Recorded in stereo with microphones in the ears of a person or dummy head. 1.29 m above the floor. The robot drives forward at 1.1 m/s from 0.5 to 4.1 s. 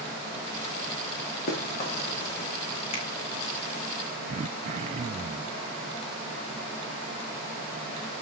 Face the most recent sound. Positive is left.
turn(degrees=-35)  # may be behind; listen again after turning